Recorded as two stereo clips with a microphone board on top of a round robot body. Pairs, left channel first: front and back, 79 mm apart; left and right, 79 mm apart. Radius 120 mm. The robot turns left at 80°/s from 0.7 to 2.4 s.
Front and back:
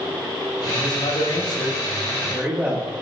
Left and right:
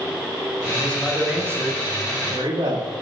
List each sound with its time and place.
0.7 s a man speaking: 30° left, 7 m; by 2.9 s 105° right, 7 m